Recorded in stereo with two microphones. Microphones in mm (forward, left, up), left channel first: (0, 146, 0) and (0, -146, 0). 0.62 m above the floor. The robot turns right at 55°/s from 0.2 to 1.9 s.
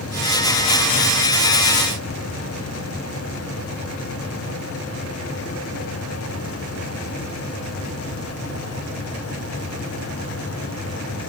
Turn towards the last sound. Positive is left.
No sound to turn to.